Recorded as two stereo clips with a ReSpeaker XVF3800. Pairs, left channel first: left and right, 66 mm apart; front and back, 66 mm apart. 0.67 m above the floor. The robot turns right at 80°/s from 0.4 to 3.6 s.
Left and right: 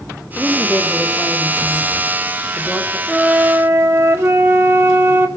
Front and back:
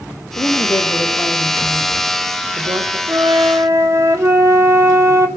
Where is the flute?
175° left, 2.5 m; by 5.3 s 145° right, 2.5 m.